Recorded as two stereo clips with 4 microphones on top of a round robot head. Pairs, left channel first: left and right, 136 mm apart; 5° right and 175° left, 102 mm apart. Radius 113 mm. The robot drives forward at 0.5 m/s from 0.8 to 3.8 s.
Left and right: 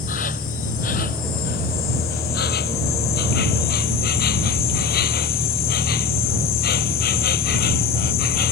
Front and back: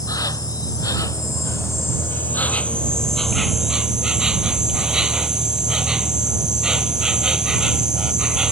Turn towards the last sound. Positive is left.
turn(degrees=90)